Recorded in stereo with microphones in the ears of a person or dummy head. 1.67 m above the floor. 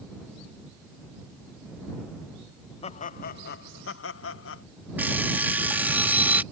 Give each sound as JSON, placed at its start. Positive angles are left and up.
{"t": 2.8, "sound": "laughter", "side_deg": 40}
{"t": 5.0, "sound": "an alarm clock", "side_deg": -5}